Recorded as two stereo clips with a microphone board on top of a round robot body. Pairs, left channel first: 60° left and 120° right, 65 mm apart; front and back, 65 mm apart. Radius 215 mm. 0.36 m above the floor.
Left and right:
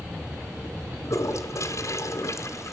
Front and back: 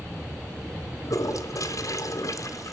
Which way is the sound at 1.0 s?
25° left.